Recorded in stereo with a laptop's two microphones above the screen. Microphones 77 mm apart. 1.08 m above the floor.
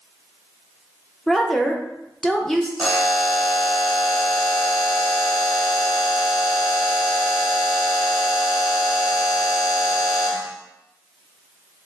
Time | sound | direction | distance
1.3 | a woman speaking | 5° left (ahead or behind) | 0.8 m
2.8 | a buzzer | centre (ahead or behind) | 0.9 m